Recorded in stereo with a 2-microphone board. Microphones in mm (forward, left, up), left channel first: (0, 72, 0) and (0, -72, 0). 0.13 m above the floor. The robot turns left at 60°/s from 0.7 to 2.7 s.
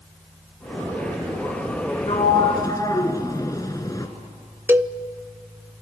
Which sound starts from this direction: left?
A sliding door, at 2.1 s.